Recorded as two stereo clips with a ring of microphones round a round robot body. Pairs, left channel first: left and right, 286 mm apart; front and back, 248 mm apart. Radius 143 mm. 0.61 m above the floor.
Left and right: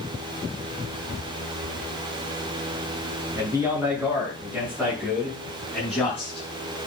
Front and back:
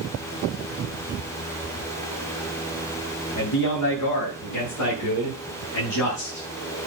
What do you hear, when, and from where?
3.4 s a man speaking: 10° right, 7 m; by 6.5 s 10° left, 6.5 m